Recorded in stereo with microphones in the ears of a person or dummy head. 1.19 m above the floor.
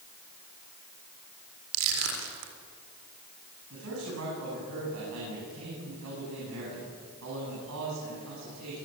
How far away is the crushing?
About 4 m.